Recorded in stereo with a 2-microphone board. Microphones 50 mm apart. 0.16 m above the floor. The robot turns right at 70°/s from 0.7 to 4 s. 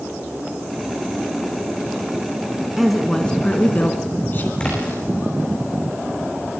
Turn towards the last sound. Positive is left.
turn(degrees=20)  # may be behind; listen again after turning